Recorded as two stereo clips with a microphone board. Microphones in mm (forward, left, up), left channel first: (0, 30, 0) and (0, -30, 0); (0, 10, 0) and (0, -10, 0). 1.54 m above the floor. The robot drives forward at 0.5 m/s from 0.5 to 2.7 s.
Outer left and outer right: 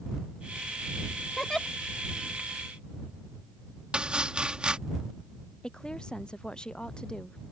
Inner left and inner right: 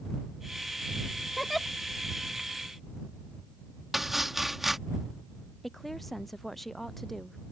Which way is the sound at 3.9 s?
15° right (ahead or behind).